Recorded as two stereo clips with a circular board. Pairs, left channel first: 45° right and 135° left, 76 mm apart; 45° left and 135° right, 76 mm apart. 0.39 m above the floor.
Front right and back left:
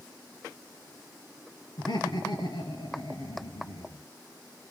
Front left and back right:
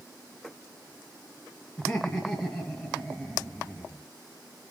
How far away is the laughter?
About 4.5 m.